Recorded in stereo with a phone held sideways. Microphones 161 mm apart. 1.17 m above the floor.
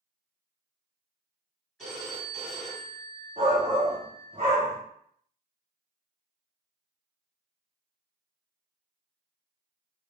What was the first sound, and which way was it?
A phone ringing, 5° left (ahead or behind).